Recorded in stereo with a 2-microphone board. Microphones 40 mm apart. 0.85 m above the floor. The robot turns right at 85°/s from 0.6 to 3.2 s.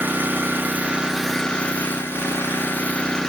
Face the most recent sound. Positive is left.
turn(degrees=170)